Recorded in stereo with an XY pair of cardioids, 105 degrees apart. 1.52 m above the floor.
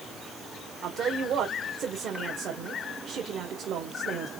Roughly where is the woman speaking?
Ahead right.